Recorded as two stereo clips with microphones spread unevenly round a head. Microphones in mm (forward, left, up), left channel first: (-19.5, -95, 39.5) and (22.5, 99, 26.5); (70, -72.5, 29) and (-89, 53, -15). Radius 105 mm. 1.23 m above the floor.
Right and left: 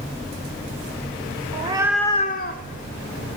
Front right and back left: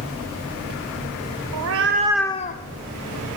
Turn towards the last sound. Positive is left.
turn(degrees=-65)